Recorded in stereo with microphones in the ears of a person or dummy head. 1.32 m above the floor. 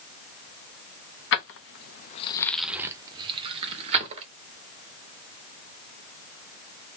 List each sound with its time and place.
1.3 s keys jangling: 60° left (ahead or behind), 0.9 m; by 4.3 s 35° right (ahead or behind), 1.8 m